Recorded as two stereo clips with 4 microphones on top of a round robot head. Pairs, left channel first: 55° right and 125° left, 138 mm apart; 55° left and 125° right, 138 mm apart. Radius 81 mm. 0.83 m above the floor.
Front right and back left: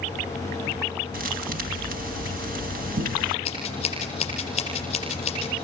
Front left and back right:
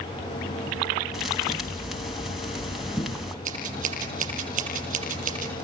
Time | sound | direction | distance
1.1 | a thud | 145° left | 2.5 m
3.5 | scissors | 100° right | 7.5 m